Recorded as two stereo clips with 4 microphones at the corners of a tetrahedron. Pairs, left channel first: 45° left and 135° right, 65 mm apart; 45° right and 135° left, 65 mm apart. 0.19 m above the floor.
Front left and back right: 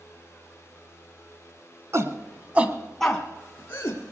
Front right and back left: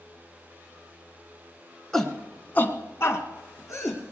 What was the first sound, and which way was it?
A shout, 130° right.